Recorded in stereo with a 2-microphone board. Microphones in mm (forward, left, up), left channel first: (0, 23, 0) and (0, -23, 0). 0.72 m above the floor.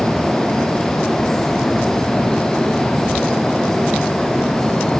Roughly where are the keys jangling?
No keys jangling in this recording.